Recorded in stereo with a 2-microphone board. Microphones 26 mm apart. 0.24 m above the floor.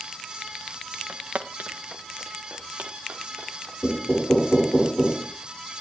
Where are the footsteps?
75° right (ahead or behind), 1.4 m; by 3.7 s 65° right (ahead or behind), 4 m.